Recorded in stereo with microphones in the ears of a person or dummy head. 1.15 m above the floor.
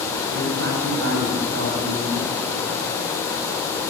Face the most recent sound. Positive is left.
turn(degrees=-85)